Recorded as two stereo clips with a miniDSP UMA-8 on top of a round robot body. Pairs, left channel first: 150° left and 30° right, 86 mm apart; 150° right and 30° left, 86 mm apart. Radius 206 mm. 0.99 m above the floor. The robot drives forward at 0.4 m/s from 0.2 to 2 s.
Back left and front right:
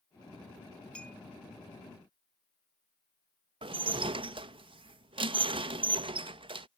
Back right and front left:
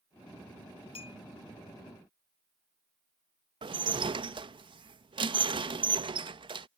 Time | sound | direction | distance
0.9 | a clink | 130° right | ?
3.6 | dishes clattering | 5° right | ?